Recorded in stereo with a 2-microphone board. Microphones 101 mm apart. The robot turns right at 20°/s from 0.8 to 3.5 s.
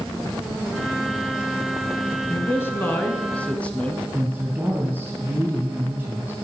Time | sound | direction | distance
2.3 | a man speaking | 25° left (ahead or behind) | 1.5 m
4.1 | a woman speaking | 10° right (ahead or behind) | 2.5 m